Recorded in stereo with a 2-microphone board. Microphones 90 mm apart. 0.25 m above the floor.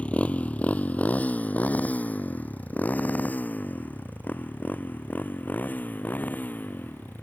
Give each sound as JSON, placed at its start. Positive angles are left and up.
{"t": 0.0, "sound": "a motorcycle", "side_deg": 15}